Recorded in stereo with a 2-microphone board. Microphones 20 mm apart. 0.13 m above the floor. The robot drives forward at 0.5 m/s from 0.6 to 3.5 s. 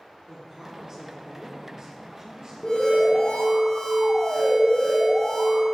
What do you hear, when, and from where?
0.3 s a woman speaking: 35° right (ahead or behind), 4 m; by 2.5 s 40° right (ahead or behind), 3 m
2.6 s an alarm: 40° left (ahead or behind), 4 m; by 5.7 s 35° left (ahead or behind), 4 m